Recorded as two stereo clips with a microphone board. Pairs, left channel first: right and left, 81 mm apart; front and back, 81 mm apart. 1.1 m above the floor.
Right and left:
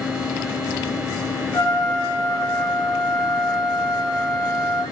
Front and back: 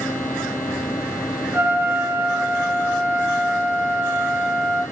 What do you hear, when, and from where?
1.5 s a trumpet: 120° right, 3 m